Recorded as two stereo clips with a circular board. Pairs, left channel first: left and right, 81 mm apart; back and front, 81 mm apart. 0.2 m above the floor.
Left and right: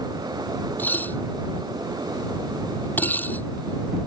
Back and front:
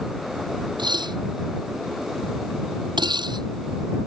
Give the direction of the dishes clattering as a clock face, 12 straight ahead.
11 o'clock.